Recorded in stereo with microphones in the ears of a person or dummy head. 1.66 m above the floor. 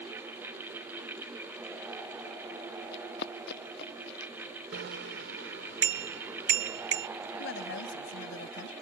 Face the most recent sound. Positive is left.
turn(degrees=65)  # may be behind; listen again after turning